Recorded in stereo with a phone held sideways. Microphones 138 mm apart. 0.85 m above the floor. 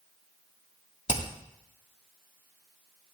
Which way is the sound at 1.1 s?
55° left (ahead or behind).